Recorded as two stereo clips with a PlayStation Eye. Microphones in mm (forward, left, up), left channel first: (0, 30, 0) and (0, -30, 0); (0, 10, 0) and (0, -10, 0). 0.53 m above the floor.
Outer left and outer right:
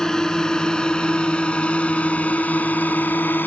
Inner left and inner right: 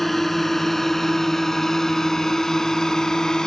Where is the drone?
10° left (ahead or behind); by 3.5 s 35° left (ahead or behind).